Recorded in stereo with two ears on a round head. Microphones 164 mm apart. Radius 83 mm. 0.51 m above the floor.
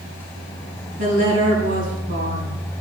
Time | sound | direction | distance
1.0 | a woman speaking | 45° right (ahead or behind) | 4.5 m